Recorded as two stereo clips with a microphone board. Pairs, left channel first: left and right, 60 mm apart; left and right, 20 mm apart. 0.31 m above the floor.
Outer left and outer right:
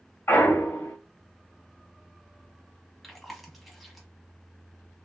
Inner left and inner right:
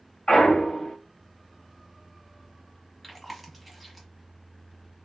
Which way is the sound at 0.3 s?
40° left (ahead or behind).